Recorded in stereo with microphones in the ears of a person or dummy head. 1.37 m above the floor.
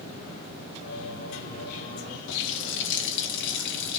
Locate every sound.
0.8 s singing: 75° left (ahead or behind), 3 m
2.3 s a running tap: 70° left (ahead or behind), 1.1 m